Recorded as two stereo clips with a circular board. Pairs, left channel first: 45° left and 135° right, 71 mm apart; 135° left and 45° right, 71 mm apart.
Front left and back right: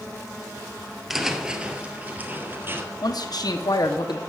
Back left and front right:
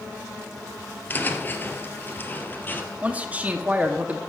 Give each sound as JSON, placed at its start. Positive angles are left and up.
{"t": 1.1, "sound": "footsteps", "azimuth_deg": 145, "distance_m": 1.5}
{"t": 3.0, "sound": "a man speaking", "azimuth_deg": 25, "distance_m": 1.1}